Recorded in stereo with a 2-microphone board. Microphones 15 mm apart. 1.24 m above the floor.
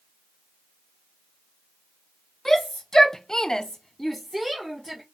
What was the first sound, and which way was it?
A shout, 30° left (ahead or behind).